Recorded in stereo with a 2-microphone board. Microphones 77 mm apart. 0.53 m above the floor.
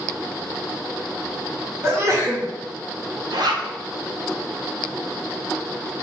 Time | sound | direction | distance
1.8 | a sneeze | 35° right (ahead or behind) | 1.8 m
3.3 | a zipper | 65° right (ahead or behind) | 0.9 m